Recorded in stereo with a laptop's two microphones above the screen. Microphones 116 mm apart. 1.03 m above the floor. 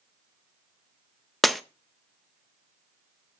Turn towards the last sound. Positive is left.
turn(degrees=0)  # may be behind; listen again after turning